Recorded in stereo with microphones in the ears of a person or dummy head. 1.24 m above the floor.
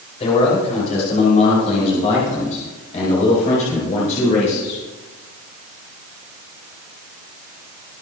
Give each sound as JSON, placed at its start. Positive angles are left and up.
{"t": 0.2, "sound": "a man speaking", "side_deg": 40, "distance_m": 4.5}